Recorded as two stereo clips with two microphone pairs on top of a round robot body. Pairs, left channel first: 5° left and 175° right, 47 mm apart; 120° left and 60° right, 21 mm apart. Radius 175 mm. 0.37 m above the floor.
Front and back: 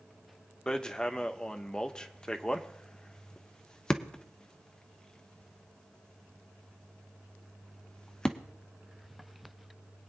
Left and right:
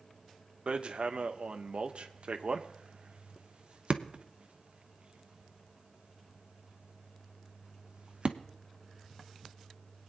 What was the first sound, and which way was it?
Hammering, 65° right.